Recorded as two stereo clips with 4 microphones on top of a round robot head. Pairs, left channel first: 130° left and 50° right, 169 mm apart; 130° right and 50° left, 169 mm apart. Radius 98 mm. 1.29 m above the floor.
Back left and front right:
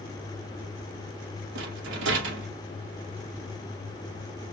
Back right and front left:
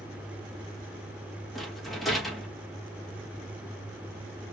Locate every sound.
1.6 s a rattle: 40° right, 1.1 m